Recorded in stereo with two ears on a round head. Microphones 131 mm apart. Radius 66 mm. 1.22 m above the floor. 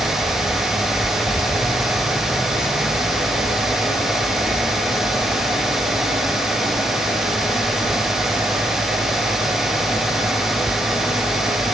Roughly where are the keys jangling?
Centre.